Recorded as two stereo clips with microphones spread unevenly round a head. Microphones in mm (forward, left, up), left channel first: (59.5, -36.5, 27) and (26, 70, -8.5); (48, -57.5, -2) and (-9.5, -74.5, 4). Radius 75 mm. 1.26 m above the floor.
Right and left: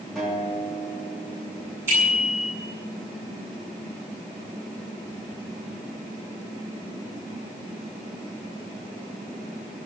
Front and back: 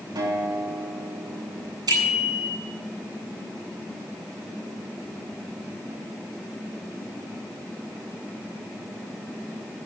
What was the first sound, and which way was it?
A guitar, 165° right.